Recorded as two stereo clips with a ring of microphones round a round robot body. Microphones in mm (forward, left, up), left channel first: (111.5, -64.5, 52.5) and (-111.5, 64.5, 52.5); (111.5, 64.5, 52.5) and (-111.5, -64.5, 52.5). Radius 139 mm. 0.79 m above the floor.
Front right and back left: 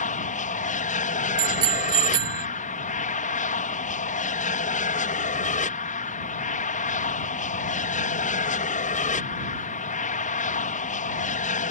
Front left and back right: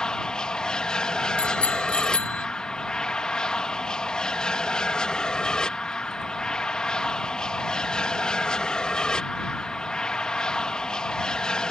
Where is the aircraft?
55° right.